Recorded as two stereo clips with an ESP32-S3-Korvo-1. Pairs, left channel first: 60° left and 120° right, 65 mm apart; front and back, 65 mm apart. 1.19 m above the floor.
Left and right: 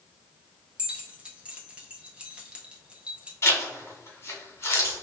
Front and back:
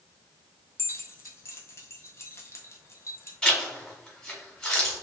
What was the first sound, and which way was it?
Keys jangling, 45° right.